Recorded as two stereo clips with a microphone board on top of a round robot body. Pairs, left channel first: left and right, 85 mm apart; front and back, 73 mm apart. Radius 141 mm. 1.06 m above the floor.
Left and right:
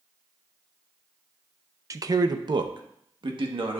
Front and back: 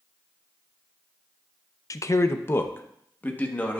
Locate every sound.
1.9 s a man speaking: 40° right, 0.6 m; by 3.8 s 70° right, 1.6 m